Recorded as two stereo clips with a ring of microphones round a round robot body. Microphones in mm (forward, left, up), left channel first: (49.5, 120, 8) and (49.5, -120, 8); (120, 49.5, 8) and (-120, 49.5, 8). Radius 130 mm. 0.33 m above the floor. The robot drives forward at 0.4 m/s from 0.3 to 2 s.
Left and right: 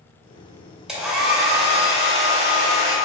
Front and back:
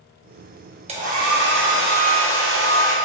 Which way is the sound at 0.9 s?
175° right.